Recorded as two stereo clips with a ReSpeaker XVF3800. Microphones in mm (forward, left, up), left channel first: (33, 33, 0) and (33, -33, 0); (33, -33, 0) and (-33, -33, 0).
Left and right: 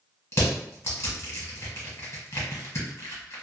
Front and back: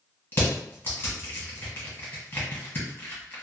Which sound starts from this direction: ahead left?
Crushing, at 0.3 s.